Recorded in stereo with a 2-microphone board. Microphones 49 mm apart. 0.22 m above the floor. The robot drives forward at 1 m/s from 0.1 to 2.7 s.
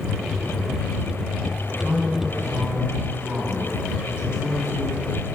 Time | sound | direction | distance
1.8 | a man speaking | 25° right (ahead or behind) | 1.6 m